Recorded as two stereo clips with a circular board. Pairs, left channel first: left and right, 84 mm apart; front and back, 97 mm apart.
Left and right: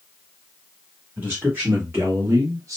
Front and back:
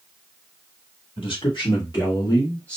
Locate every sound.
1.2 s a man speaking: 20° right, 2 m; by 2.8 s 80° right, 0.9 m